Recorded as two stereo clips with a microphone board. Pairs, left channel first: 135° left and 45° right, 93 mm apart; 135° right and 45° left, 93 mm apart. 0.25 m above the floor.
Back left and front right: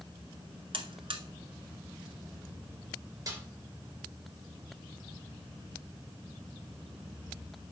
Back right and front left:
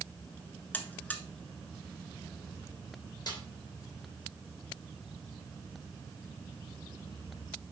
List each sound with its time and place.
0.7 s a buzzer: 65° right, 0.9 m
3.3 s a snare drum: 90° right, 3 m